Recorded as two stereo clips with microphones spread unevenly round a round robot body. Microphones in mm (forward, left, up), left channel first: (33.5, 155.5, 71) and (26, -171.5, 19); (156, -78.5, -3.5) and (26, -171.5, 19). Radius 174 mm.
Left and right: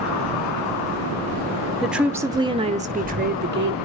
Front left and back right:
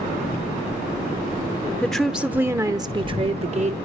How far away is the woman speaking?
About 1.1 m.